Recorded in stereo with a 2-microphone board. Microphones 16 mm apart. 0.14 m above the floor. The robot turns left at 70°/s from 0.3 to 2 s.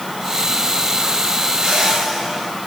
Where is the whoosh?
70° right (ahead or behind), 9.5 m; by 2.5 s 40° right (ahead or behind), 9.5 m.